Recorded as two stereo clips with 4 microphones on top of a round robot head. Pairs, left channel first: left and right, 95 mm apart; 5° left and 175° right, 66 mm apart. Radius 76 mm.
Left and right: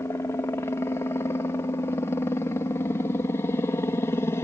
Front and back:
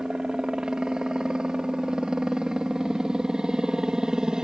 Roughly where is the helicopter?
Behind left.